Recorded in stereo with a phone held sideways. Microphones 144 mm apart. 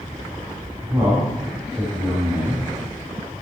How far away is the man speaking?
About 3 m.